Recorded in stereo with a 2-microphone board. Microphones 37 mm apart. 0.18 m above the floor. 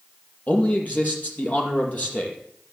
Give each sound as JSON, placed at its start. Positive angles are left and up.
{"t": 0.5, "sound": "a man speaking", "side_deg": 45, "distance_m": 4.5}